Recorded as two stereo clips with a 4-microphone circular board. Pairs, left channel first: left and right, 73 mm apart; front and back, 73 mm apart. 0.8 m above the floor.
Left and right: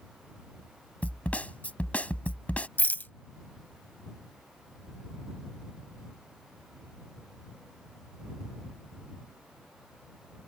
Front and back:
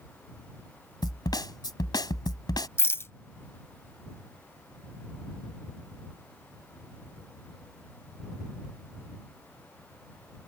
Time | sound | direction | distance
1.0 | a snare drum | 20° left | ?
2.8 | a rattle | 35° left | ?